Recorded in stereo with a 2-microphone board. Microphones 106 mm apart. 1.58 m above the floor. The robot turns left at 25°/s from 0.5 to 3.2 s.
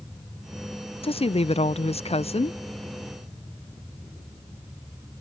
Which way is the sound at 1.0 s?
115° left.